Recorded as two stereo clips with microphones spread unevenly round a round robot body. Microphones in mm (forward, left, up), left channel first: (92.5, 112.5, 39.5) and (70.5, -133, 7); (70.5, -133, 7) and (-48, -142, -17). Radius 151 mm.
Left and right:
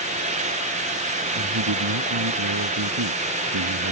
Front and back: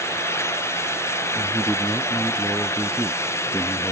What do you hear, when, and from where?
1.4 s a man speaking: 85° right